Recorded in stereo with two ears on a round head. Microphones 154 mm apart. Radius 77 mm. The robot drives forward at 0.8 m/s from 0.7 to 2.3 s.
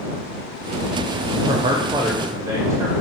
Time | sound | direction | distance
1.5 | a man speaking | 30° right (ahead or behind) | 0.6 m